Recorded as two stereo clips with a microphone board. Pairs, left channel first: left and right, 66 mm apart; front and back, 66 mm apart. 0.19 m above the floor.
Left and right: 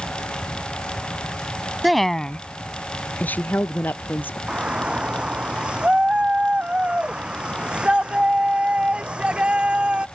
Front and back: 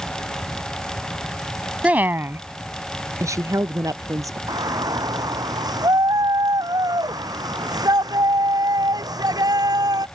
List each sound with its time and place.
1.8 s a woman speaking: 165° right; by 4.4 s 150° left
4.5 s a shout: 165° right